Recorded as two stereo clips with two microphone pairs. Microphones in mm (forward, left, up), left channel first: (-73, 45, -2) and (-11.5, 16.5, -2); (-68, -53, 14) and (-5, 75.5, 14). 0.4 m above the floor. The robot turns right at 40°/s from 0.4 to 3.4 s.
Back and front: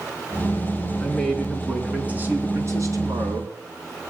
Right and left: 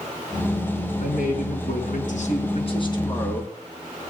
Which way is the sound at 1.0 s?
135° right.